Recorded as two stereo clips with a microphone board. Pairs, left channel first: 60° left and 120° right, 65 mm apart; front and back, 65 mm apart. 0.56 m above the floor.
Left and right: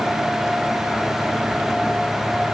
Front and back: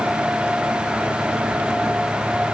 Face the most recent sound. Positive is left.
No sound to turn to.